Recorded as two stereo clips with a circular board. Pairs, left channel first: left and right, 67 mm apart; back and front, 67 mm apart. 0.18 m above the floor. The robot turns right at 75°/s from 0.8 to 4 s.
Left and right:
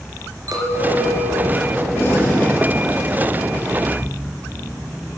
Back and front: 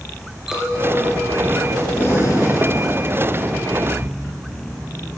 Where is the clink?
80° right, 2.5 m; by 2.9 s 80° left, 2.5 m.